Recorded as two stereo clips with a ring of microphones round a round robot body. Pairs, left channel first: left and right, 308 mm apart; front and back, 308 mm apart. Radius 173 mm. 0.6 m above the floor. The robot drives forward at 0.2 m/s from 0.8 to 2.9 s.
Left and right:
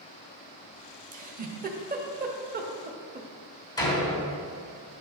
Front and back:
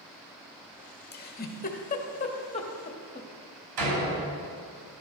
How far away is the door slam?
About 3 m.